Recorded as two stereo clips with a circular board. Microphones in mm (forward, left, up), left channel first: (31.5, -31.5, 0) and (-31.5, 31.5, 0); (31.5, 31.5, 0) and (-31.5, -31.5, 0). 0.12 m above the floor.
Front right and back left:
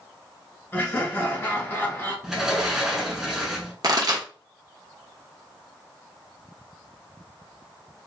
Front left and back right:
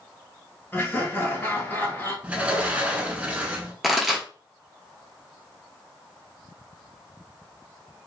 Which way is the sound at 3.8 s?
140° left.